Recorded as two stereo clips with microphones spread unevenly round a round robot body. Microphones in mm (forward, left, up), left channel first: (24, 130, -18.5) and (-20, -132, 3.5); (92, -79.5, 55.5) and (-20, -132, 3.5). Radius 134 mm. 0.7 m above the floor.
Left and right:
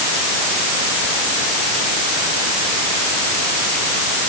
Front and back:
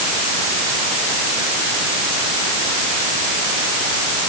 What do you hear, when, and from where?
Only background noise.